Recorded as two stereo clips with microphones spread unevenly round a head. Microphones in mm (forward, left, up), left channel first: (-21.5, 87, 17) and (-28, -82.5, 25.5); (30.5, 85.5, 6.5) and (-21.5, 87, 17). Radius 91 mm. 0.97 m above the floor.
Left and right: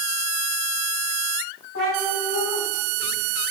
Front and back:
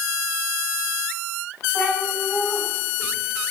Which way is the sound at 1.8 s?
45° left.